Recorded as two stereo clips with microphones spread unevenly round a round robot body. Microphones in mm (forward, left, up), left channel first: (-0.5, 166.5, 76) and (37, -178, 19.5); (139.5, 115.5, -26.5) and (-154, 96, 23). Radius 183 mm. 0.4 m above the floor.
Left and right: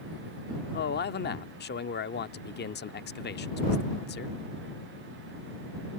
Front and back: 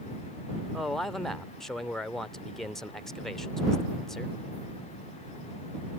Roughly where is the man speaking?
Ahead left.